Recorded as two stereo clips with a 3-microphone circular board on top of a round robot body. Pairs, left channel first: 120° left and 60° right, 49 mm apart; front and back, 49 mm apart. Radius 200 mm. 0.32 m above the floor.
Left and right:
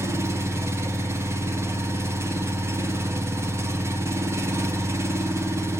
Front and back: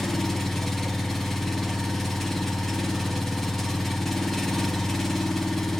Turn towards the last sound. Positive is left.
turn(degrees=-85)